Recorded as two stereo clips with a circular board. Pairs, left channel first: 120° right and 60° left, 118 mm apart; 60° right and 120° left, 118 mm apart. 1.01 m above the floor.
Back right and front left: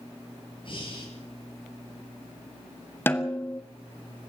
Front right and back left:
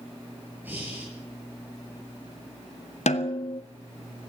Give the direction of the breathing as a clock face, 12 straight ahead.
6 o'clock.